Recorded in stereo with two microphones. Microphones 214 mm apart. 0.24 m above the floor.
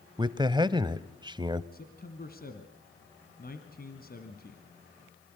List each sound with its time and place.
0.2 s a man speaking: 20° right (ahead or behind), 0.9 m
1.7 s a man speaking: 45° left (ahead or behind), 2 m